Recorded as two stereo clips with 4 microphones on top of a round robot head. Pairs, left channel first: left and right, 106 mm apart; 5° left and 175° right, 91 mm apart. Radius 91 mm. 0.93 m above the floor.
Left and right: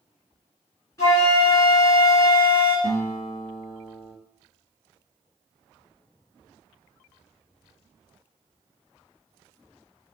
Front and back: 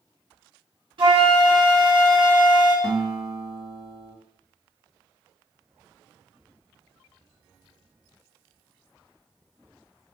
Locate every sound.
1.0 s a flute: 155° left, 2 m
2.8 s a guitar: 135° left, 0.9 m